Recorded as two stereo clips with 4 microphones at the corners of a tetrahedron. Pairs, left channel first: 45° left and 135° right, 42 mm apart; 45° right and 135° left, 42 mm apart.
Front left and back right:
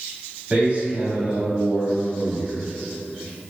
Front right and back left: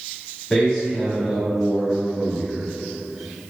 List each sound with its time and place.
0.5 s a man speaking: 110° right, 1.3 m